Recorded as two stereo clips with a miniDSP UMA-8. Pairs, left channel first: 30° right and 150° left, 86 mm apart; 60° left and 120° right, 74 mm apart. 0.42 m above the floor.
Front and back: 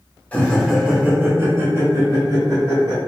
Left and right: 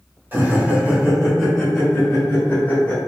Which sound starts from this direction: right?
Laughter, at 0.3 s.